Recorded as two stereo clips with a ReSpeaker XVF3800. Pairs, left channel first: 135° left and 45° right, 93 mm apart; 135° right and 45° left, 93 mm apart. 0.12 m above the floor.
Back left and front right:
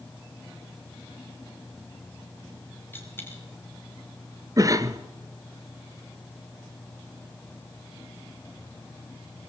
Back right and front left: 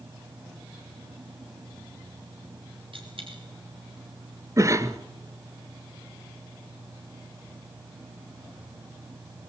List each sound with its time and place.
2.9 s a dropped coin: 65° left, 5.5 m
4.6 s a cough: 5° right, 1.6 m